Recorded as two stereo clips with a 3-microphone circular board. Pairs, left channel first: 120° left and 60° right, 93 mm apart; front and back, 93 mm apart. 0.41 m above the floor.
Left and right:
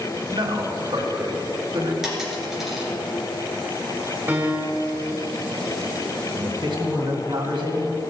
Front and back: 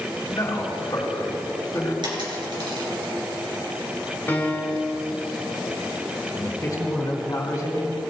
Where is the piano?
25° right, 1.5 m.